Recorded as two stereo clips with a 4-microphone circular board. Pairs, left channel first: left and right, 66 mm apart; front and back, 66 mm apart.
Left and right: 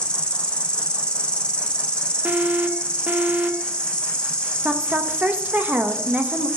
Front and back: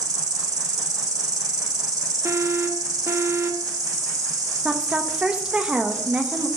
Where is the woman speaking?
125° right, 1.1 m.